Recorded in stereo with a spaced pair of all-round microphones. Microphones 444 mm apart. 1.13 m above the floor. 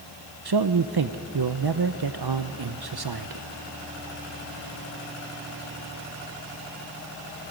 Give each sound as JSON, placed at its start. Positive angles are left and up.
{"t": 0.5, "sound": "a man speaking", "side_deg": -60, "distance_m": 0.6}